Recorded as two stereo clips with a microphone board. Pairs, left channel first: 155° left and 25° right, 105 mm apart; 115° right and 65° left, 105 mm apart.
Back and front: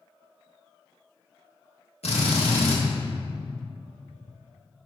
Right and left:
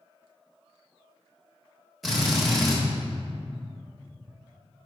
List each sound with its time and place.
2.0 s a drill: 160° left, 1.8 m